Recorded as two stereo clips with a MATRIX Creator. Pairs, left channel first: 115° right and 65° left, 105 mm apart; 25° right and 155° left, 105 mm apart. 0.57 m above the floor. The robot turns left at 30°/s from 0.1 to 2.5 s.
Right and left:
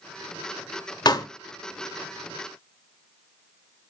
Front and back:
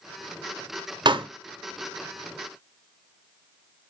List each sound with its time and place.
1.1 s a pop: 160° right, 0.5 m; by 1.3 s 165° right, 0.5 m